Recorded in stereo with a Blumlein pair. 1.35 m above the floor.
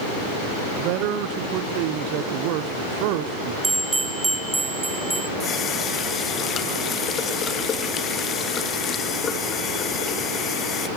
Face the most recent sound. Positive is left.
turn(degrees=25)